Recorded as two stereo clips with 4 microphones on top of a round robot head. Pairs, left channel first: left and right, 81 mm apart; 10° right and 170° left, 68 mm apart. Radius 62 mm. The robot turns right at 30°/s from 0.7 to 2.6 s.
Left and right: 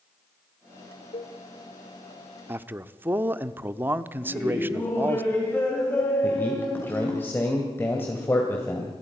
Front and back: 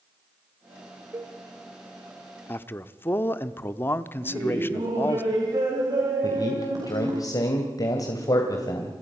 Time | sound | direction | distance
1.1 | a cowbell | 110° left | 0.7 m
2.5 | a man speaking | 45° right | 0.8 m
4.2 | laughter | 155° left | 3.5 m
6.2 | a man speaking | 20° left | 2.5 m